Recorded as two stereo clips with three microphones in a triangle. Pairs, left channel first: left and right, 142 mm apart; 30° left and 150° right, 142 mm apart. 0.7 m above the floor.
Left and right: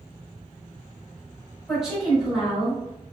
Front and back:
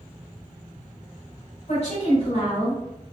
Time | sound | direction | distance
1.7 | a woman speaking | straight ahead | 1.9 m